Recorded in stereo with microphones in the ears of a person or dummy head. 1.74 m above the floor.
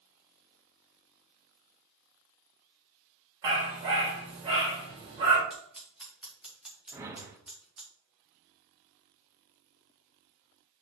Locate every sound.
3.4 s a dog barking: 25° right (ahead or behind), 1.5 m
5.5 s scissors: 5° right (ahead or behind), 2.0 m
6.9 s a whoosh: 10° right (ahead or behind), 0.9 m